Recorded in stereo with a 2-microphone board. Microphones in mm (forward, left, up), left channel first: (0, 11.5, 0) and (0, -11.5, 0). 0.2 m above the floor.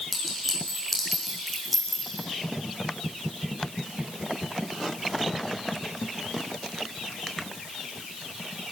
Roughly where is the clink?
Centre.